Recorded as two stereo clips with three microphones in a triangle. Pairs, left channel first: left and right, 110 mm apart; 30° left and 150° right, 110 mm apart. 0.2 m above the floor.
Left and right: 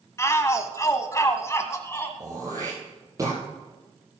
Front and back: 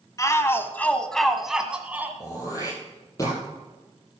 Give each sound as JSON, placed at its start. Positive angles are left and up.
{"t": 0.2, "sound": "a shout", "azimuth_deg": 50, "distance_m": 1.1}
{"t": 2.2, "sound": "throat clearing", "azimuth_deg": -30, "distance_m": 8.0}